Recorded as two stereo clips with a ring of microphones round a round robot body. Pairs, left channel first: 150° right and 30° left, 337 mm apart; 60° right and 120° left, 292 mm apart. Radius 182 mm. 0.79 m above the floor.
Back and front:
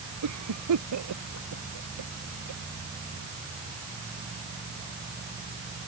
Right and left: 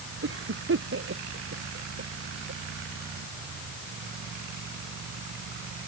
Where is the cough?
75° left.